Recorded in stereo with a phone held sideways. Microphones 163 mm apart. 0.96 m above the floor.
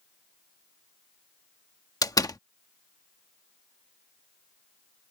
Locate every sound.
2.0 s a door slam: 20° left (ahead or behind)